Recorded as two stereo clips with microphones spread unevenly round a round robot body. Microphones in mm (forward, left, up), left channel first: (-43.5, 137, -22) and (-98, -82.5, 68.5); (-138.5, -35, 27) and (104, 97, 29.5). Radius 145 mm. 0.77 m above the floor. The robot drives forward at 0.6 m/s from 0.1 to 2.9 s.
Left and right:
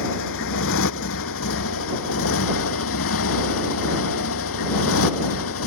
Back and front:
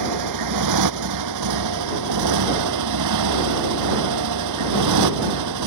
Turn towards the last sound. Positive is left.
turn(degrees=40)